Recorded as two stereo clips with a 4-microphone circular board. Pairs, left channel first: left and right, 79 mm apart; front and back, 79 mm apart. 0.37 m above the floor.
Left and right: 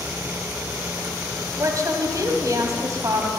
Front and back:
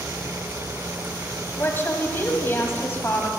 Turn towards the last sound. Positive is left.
turn(degrees=-55)